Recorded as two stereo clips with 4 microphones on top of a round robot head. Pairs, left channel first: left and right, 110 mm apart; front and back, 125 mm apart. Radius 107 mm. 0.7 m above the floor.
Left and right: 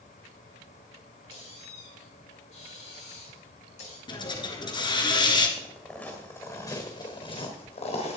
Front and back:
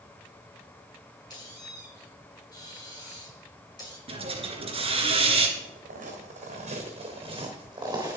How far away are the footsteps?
About 3.5 m.